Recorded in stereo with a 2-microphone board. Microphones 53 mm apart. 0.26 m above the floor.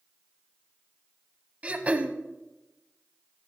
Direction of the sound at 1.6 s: 30° right (ahead or behind).